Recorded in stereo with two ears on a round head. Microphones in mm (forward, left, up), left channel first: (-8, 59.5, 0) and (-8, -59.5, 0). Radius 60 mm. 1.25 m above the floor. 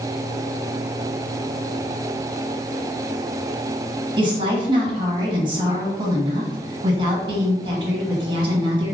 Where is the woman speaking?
40° right (ahead or behind), 1.2 m.